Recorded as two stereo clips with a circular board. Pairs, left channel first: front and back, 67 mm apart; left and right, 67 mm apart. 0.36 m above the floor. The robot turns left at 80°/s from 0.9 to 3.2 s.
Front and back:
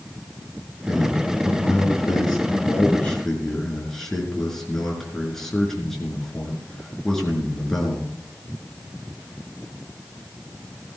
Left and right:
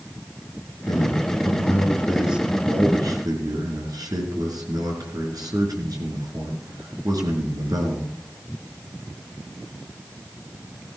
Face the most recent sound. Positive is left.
turn(degrees=-85)